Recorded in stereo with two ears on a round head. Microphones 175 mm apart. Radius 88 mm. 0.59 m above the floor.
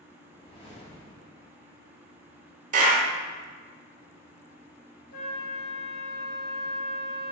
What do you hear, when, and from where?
0.3 s a whoosh: 30° left (ahead or behind), 1.4 m
2.7 s a clap: 40° right (ahead or behind), 1.4 m
5.1 s a flute: 50° left (ahead or behind), 1.7 m